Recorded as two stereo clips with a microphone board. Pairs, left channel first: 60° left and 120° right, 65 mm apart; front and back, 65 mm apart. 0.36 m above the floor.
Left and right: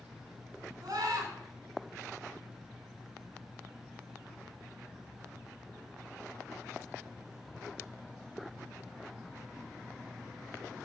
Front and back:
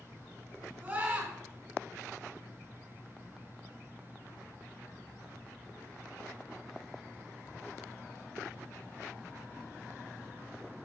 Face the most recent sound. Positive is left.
turn(degrees=-115)